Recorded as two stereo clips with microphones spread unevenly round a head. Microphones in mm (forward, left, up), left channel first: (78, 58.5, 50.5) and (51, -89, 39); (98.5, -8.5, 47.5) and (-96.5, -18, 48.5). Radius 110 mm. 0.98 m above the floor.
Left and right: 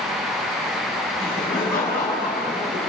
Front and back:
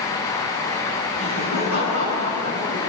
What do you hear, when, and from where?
1.2 s laughter: 170° left, 7.5 m; by 2.9 s 160° left, 9.5 m